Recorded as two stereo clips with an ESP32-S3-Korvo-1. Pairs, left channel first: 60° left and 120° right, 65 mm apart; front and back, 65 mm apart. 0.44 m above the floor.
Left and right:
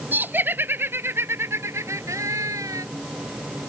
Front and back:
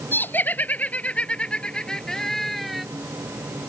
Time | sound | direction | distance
0.1 | laughter | 60° right | ?